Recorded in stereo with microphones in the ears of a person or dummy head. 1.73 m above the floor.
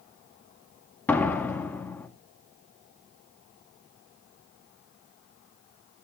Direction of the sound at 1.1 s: 5° left (ahead or behind).